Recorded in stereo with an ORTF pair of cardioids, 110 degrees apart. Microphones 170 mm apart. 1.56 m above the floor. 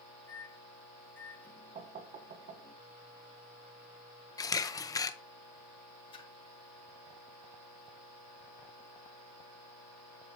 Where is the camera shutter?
20° left, 0.8 m.